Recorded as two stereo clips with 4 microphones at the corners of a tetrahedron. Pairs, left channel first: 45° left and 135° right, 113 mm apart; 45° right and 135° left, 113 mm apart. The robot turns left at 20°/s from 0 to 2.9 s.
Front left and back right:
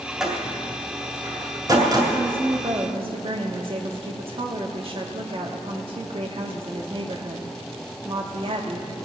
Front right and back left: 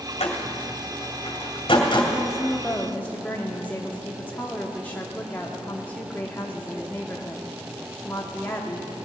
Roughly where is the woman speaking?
Right.